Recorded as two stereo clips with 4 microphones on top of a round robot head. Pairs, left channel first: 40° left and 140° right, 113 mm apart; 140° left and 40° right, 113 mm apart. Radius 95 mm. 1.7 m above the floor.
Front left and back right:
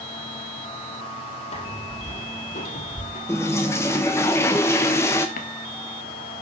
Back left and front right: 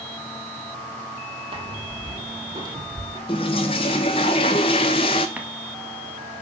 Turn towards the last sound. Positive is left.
turn(degrees=40)